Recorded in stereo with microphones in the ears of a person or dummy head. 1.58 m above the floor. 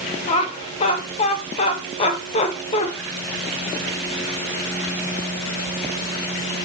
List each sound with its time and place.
0.3 s laughter: 35° left (ahead or behind), 1.6 m